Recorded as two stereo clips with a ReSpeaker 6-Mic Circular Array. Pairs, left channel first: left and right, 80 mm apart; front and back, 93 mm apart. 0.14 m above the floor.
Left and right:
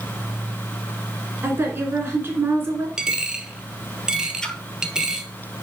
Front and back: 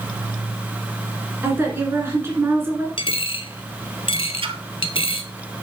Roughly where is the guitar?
I don't hear a guitar.